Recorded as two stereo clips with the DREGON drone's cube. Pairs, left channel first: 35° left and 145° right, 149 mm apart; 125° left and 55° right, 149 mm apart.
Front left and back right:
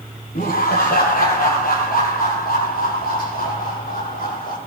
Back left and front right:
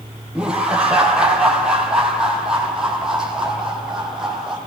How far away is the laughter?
About 9 m.